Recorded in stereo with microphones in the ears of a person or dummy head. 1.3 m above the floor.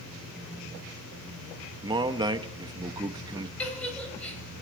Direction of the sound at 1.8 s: 20° right (ahead or behind).